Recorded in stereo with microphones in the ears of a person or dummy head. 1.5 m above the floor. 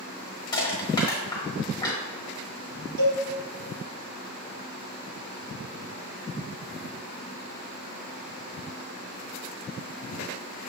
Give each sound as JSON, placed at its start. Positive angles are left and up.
{"t": 0.5, "sound": "crushing", "side_deg": 25, "distance_m": 1.1}
{"t": 3.0, "sound": "a cowbell", "side_deg": -65, "distance_m": 1.7}